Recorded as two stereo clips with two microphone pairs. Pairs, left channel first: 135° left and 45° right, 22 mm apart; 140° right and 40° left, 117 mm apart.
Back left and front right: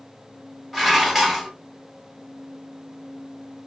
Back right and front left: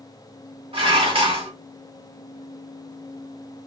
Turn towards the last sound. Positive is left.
turn(degrees=35)